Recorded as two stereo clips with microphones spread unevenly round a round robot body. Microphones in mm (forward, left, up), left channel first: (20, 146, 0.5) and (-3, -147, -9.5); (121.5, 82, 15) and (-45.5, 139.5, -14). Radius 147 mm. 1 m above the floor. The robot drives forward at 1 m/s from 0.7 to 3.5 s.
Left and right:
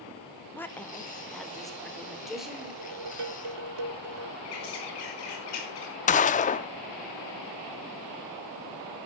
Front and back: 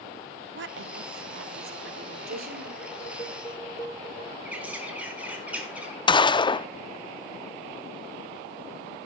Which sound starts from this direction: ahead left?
A gunshot, at 6.1 s.